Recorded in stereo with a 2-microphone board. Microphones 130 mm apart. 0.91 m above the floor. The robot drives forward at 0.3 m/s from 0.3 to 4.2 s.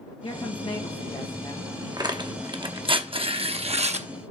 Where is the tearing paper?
35° right (ahead or behind), 1.1 m; by 4.1 s 65° right (ahead or behind), 0.7 m.